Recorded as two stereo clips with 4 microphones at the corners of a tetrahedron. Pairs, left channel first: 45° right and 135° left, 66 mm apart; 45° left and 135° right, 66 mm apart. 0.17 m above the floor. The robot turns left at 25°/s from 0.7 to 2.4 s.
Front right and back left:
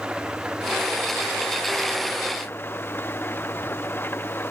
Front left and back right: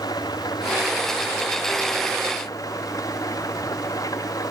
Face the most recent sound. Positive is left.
turn(degrees=15)